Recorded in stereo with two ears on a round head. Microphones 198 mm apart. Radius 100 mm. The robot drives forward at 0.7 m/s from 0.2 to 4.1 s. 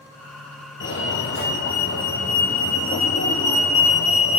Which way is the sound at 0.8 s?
55° left (ahead or behind).